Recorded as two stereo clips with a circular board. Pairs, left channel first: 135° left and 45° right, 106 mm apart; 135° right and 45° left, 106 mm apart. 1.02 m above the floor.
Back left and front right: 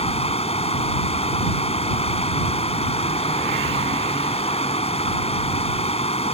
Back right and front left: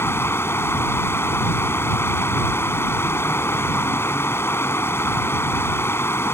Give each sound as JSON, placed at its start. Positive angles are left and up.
{"t": 0.0, "sound": "running water", "azimuth_deg": 160}